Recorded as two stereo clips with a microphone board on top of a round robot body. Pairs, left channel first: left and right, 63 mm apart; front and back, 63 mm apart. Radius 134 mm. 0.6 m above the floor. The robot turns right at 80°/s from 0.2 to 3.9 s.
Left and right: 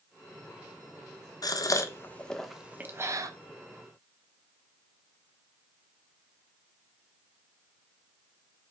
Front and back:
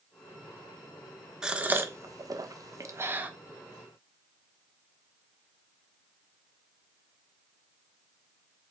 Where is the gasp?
100° left, 1.3 m; by 3.3 s 110° right, 1.3 m.